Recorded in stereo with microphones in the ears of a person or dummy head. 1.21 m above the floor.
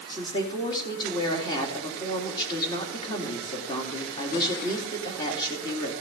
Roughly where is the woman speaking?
Left.